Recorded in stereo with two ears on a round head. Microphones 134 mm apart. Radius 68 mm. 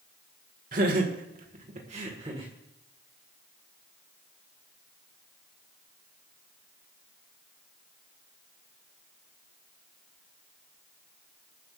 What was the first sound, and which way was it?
Laughter, 55° right (ahead or behind).